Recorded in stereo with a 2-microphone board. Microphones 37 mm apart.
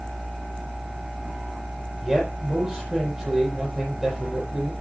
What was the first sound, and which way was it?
A man speaking, 15° right (ahead or behind).